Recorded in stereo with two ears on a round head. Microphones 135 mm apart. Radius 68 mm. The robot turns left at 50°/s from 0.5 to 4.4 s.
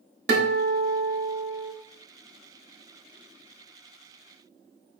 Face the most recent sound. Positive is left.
turn(degrees=80)